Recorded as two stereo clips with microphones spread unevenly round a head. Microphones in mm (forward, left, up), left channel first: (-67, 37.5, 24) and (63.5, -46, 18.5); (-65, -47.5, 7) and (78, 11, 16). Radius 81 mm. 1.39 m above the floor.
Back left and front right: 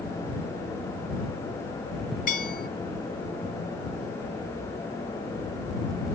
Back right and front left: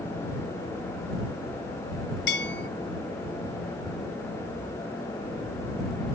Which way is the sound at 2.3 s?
Straight behind.